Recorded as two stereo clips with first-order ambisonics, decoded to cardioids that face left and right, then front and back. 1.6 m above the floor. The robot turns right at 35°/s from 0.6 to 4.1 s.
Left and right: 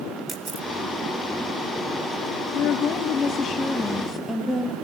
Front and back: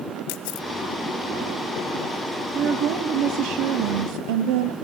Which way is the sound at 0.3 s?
15° right.